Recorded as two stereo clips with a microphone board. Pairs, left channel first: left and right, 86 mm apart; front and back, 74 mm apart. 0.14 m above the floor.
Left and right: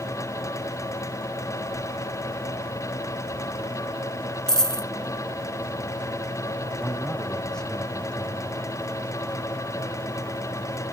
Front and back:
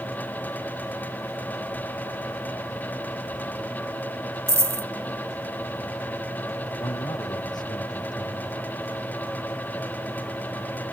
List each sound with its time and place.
4.5 s a dropped coin: 170° left
6.8 s a man speaking: 5° left